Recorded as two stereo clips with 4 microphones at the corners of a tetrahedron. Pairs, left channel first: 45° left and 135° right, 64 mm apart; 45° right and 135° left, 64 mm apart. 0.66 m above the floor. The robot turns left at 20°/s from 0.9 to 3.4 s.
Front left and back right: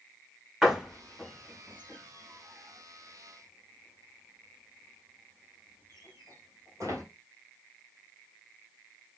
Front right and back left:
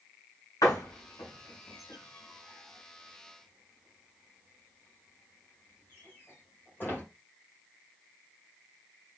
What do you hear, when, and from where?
0.6 s a door slam: 55° right, 2 m; by 7.0 s 105° right, 2 m